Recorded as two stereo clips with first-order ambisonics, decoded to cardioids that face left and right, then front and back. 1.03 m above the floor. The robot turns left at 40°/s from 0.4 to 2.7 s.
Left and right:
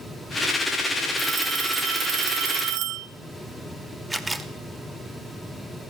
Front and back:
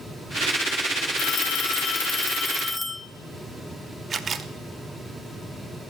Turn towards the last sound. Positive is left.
turn(degrees=-160)